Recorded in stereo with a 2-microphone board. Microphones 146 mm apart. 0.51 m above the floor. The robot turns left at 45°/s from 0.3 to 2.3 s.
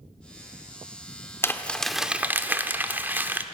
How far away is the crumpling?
About 1.0 m.